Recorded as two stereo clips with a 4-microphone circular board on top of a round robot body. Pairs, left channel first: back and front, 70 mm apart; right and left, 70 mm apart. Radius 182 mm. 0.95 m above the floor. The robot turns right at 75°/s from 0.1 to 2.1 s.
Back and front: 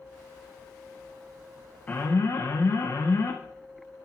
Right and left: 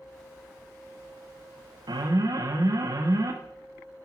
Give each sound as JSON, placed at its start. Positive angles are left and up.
{"t": 1.9, "sound": "an alarm", "azimuth_deg": 110, "distance_m": 1.6}